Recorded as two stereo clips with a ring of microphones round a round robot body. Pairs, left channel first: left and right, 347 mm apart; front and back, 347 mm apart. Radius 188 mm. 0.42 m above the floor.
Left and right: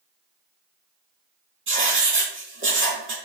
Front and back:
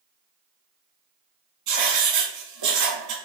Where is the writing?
145° right, 3 m.